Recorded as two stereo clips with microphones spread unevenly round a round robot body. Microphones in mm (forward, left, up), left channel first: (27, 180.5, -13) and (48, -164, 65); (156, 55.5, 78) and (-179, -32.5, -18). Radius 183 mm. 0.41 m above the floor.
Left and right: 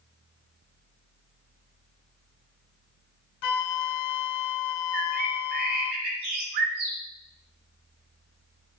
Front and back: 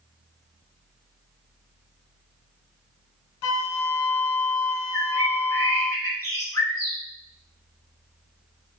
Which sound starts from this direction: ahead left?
A flute, at 3.4 s.